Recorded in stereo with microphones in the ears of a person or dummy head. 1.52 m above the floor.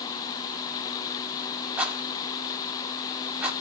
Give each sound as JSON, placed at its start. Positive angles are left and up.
{"t": 1.8, "sound": "a rattle", "side_deg": -10, "distance_m": 5.0}